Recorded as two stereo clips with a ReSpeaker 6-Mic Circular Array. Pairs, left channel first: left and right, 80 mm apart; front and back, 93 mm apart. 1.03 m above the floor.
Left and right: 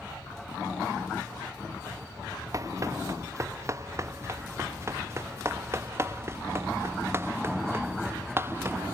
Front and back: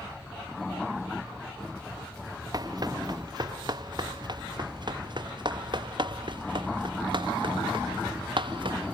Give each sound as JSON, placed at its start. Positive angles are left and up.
{"t": 2.5, "sound": "running footsteps", "azimuth_deg": -135}